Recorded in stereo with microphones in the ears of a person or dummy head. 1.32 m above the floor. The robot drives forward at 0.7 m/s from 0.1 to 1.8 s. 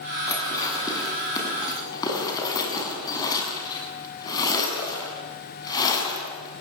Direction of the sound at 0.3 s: 15° left (ahead or behind).